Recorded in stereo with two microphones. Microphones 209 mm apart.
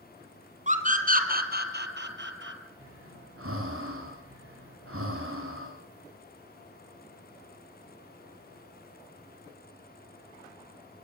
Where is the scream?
35° right (ahead or behind), 3 m; by 2.6 s 60° right (ahead or behind), 2.5 m.